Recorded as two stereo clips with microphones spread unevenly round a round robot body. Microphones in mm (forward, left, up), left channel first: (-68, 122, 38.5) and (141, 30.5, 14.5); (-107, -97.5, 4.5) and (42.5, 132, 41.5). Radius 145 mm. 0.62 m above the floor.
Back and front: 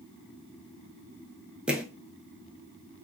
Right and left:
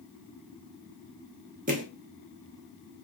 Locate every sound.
1.7 s footsteps: 65° left, 0.6 m